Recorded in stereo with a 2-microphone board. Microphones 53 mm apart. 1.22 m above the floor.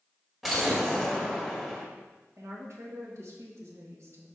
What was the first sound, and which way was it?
An explosion, 5° right (ahead or behind).